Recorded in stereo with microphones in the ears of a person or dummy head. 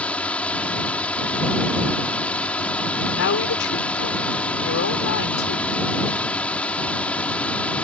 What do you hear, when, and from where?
0.0 s a drone: 5° left (ahead or behind)
3.1 s a woman speaking: 65° left (ahead or behind)